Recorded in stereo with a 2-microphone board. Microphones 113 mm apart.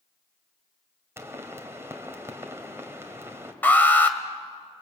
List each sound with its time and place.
1.2 s a pop: 20° right (ahead or behind), 2.5 m
3.6 s an alarm: 15° left (ahead or behind), 1.8 m